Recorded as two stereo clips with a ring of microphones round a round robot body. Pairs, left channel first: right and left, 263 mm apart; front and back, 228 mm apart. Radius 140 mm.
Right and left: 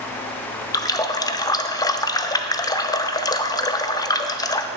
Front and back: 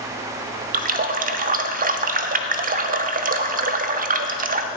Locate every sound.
0.7 s a running tap: 160° right, 0.6 m